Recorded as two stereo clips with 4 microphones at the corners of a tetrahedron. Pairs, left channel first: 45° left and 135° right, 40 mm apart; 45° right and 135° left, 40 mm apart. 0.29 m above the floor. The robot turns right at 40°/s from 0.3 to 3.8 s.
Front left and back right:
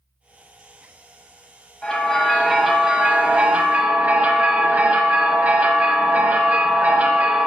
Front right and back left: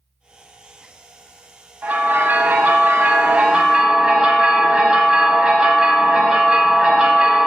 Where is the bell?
115° left, 1.1 m; by 7.5 s 165° right, 1.1 m.